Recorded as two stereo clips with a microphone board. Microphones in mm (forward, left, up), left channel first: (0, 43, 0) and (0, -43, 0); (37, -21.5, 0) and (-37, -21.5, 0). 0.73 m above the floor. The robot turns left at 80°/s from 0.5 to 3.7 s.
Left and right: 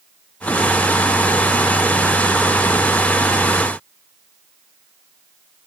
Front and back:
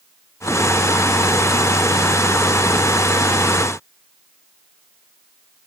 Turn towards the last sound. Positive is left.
No sound to turn to.